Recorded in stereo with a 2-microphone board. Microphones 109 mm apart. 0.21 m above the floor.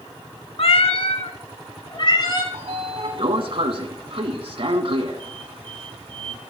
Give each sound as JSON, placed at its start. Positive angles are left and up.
{"t": 0.6, "sound": "a cat meowing", "side_deg": 60, "distance_m": 0.7}
{"t": 2.5, "sound": "a sliding door", "side_deg": -55, "distance_m": 0.7}